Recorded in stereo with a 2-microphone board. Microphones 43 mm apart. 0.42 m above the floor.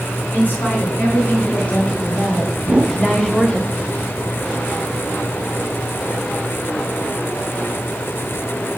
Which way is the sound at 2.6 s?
25° right (ahead or behind).